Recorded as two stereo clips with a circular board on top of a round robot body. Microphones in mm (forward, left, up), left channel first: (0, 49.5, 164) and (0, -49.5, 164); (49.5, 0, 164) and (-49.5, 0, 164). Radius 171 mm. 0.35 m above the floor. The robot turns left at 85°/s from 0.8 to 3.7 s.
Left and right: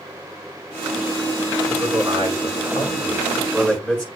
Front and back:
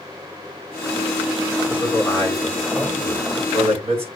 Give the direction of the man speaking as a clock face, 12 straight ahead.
1 o'clock.